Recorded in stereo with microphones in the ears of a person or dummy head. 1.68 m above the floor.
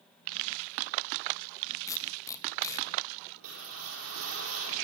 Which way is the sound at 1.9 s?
20° left (ahead or behind).